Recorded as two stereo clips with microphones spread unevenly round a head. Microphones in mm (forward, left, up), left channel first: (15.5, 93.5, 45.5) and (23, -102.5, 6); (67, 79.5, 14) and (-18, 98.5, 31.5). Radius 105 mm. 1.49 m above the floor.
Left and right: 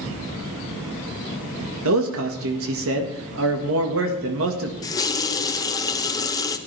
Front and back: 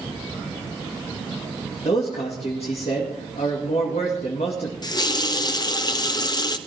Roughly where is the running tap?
Ahead left.